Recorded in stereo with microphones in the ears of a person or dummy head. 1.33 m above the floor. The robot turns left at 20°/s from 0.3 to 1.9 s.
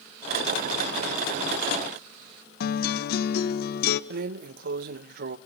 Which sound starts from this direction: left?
A guitar, at 2.6 s.